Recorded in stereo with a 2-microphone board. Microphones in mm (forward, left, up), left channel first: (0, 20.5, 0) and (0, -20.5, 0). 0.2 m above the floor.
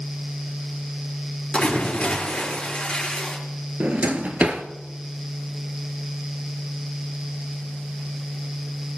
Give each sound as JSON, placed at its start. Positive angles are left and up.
{"t": 1.5, "sound": "a splash", "side_deg": 25, "distance_m": 4.0}
{"t": 3.8, "sound": "a drawer", "side_deg": -40, "distance_m": 1.1}